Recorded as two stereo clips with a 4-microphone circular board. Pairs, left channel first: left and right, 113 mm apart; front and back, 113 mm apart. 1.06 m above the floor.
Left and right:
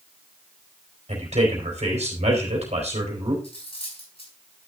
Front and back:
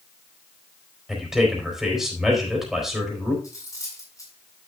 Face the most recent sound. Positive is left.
turn(degrees=60)